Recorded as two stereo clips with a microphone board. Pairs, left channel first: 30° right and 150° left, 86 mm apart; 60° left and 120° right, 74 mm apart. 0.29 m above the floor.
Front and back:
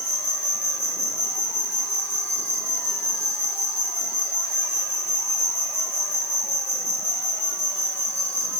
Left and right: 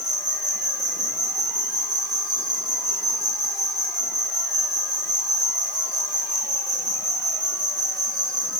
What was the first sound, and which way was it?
An insect, 35° left.